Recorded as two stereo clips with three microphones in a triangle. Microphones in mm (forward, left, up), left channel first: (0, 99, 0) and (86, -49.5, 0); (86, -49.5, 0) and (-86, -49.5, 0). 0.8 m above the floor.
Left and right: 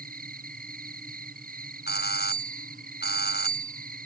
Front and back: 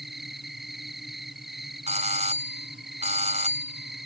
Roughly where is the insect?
Right.